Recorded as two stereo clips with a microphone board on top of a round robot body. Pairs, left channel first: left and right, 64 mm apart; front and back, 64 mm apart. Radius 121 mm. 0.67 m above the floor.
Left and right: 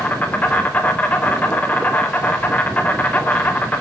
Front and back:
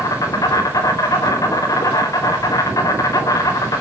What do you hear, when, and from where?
0.0 s an insect: 30° left, 3.5 m